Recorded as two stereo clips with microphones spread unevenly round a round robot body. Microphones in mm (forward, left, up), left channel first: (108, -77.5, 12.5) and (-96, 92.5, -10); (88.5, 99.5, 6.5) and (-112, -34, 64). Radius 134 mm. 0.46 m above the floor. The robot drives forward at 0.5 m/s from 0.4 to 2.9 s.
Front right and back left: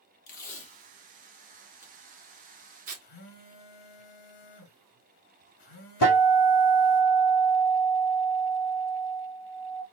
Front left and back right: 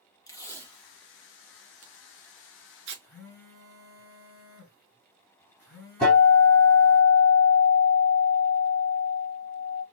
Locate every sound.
0.3 s tape being pulled: straight ahead, 0.9 m; by 3.0 s straight behind, 1.1 m
3.0 s a phone buzzing: 50° right, 2 m
6.0 s a guitar: 55° right, 3 m